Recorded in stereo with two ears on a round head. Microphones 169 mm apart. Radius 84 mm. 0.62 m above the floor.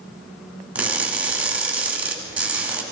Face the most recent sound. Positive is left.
turn(degrees=-5)  # may be behind; listen again after turning